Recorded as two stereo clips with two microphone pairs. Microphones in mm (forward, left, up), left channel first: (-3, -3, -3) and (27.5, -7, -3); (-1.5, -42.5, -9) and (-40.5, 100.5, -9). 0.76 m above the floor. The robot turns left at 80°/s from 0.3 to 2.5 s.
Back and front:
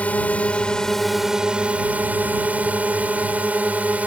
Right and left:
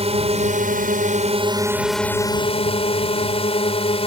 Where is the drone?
145° left; by 4.1 s 30° right.